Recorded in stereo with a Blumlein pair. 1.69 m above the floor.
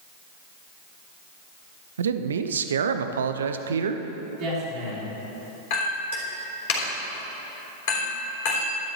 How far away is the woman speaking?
About 2.5 m.